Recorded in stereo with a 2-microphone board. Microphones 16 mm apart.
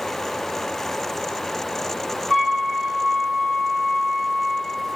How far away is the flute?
About 1.6 m.